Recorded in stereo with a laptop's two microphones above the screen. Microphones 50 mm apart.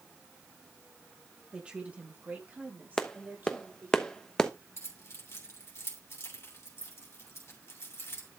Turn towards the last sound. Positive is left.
turn(degrees=60)  # may be behind; listen again after turning